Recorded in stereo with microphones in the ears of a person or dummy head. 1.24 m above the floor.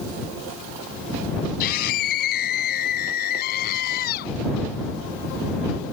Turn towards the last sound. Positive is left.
turn(degrees=55)  # may be behind; listen again after turning